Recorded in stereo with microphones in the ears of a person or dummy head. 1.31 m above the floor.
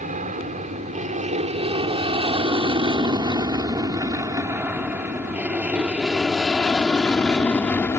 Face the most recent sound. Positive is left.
turn(degrees=15)  # may be behind; listen again after turning